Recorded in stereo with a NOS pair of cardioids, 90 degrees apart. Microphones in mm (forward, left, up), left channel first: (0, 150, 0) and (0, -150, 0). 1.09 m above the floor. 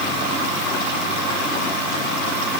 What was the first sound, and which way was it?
Only background noise.